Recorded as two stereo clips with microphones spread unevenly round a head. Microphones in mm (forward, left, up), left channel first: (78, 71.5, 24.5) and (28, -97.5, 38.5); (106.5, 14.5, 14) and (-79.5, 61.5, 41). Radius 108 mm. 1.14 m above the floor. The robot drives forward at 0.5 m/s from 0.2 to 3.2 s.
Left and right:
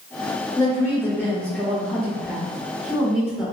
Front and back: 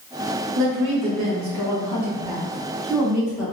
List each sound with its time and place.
0.6 s a woman speaking: 145° left, 0.9 m; by 3.5 s 165° left, 2 m